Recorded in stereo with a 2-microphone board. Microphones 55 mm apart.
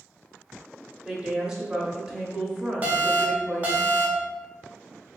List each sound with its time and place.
1.1 s a woman speaking: 15° right (ahead or behind), 0.7 m
2.8 s an alarm: 30° right (ahead or behind), 0.6 m